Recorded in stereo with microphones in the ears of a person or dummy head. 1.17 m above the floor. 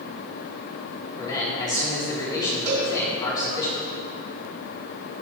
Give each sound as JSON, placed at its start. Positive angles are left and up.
{"t": 1.2, "sound": "a man speaking", "side_deg": 25, "distance_m": 3.5}
{"t": 2.7, "sound": "a cowbell", "side_deg": -75, "distance_m": 3.5}